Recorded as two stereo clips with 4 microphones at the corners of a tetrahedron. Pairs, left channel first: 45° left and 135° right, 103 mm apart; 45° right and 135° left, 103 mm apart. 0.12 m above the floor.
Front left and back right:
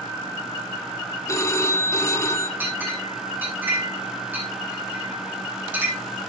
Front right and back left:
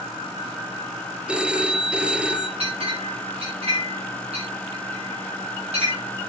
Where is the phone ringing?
65° left, 1.2 m.